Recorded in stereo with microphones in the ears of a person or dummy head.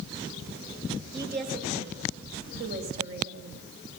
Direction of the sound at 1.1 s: 60° right (ahead or behind).